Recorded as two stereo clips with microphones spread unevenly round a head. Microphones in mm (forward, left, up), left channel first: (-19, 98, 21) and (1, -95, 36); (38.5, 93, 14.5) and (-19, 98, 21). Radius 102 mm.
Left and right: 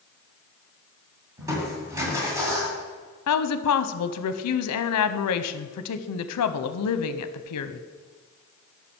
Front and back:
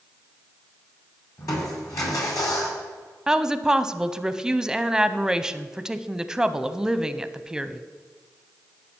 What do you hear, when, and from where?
1.4 s crushing: 15° right, 2 m
3.3 s a woman speaking: 95° left, 0.6 m